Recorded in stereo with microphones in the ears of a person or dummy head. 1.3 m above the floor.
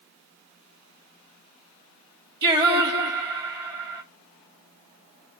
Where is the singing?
20° right (ahead or behind), 0.8 m.